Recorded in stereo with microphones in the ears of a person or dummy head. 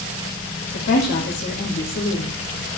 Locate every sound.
0.7 s a woman speaking: 60° left (ahead or behind), 2 m